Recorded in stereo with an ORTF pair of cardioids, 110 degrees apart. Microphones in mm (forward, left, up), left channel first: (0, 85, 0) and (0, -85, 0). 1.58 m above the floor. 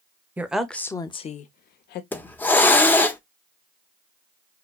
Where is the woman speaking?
10° right, 0.9 m; by 2.0 s 70° left, 0.9 m.